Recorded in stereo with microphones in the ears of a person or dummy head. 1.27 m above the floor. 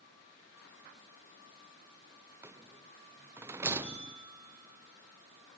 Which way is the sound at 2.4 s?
10° right (ahead or behind).